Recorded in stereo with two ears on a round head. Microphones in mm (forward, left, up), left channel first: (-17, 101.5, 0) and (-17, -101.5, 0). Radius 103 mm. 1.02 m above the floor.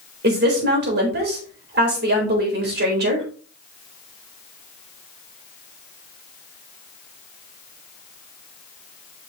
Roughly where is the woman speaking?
Right.